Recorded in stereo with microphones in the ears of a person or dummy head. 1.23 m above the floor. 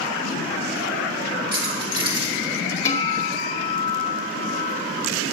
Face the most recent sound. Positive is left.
turn(degrees=20)  # may be behind; listen again after turning